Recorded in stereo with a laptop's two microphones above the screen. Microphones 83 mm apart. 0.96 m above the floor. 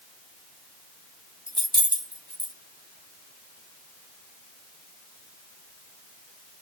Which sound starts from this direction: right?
Keys jangling, at 1.5 s.